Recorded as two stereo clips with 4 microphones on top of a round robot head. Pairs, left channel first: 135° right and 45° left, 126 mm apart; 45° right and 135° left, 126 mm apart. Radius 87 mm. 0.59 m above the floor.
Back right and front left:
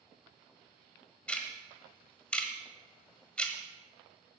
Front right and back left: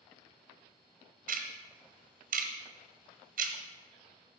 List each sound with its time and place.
1.3 s ticking: 145° left, 1.4 m